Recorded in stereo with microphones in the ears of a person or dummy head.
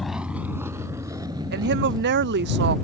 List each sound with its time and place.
0.0 s a vehicle: centre (ahead or behind); by 2.9 s 25° right (ahead or behind)
1.5 s a woman speaking: 55° right (ahead or behind)